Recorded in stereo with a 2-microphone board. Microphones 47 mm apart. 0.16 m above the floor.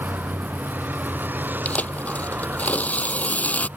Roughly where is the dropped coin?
No dropped coin in this recording.